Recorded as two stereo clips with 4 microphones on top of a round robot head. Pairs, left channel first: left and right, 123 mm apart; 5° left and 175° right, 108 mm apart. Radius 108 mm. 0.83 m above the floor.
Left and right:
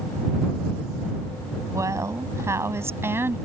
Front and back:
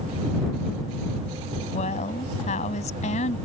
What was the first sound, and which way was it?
A woman speaking, 25° right.